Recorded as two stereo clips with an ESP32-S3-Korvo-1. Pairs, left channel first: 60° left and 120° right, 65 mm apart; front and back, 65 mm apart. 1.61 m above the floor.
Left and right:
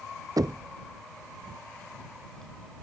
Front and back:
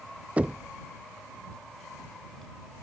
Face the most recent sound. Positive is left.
turn(degrees=-110)